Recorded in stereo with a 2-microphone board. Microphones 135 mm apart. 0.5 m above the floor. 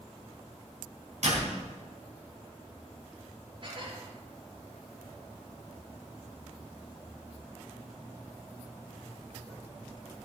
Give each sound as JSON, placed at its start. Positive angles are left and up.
{"t": 1.2, "sound": "a door slam", "side_deg": -65, "distance_m": 3.5}
{"t": 3.6, "sound": "dishes clattering", "side_deg": -40, "distance_m": 5.5}